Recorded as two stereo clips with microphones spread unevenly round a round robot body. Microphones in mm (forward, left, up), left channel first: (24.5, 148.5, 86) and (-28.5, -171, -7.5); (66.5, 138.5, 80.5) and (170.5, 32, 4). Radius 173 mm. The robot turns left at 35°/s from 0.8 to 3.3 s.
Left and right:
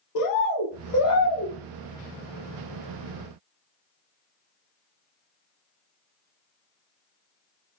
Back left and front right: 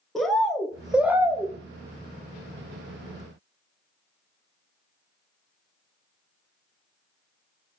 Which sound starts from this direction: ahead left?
A bird, at 0.1 s.